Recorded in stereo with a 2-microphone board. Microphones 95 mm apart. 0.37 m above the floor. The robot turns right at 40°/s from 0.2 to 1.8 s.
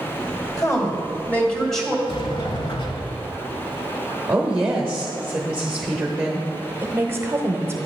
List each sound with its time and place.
0.6 s a woman speaking: 130° left, 2 m; by 2.0 s 175° left, 2 m
2.1 s a sliding door: 60° left (ahead or behind), 0.9 m
4.3 s a woman speaking: 15° right (ahead or behind), 1.0 m
6.8 s a woman speaking: 25° right (ahead or behind), 0.9 m